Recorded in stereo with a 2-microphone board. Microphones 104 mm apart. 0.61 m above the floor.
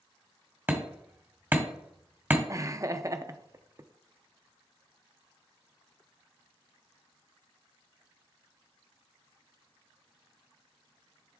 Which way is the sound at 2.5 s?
30° right (ahead or behind).